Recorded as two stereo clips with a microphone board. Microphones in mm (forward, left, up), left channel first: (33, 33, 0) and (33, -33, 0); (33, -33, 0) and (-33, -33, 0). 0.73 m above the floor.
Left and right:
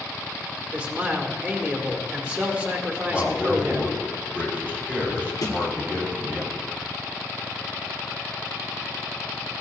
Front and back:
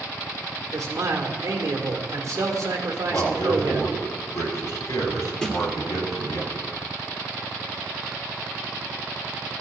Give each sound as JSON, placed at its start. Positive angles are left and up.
{"t": 0.7, "sound": "a man speaking", "azimuth_deg": -150, "distance_m": 1.9}
{"t": 3.1, "sound": "a man speaking", "azimuth_deg": -20, "distance_m": 4.0}
{"t": 5.4, "sound": "a snare drum", "azimuth_deg": 80, "distance_m": 2.5}